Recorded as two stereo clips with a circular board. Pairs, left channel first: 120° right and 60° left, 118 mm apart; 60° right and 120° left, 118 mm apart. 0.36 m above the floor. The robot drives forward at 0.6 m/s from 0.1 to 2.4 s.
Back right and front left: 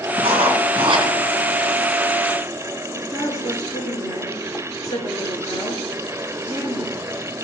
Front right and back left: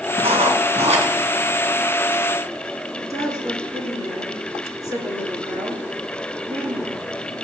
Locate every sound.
0.2 s writing: 95° left, 3.5 m; by 1.1 s 105° left, 3.5 m
2.9 s a woman speaking: straight behind, 6 m